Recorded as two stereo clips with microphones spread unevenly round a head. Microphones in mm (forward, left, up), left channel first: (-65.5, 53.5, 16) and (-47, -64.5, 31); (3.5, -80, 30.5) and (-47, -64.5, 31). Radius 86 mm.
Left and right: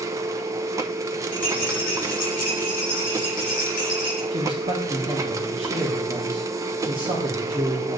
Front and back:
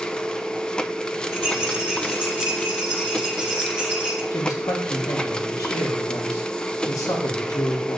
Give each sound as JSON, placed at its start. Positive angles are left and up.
{"t": 0.0, "sound": "a machine running", "azimuth_deg": -60, "distance_m": 0.8}
{"t": 1.3, "sound": "a rattle", "azimuth_deg": 60, "distance_m": 3.5}
{"t": 4.3, "sound": "a man speaking", "azimuth_deg": -20, "distance_m": 2.0}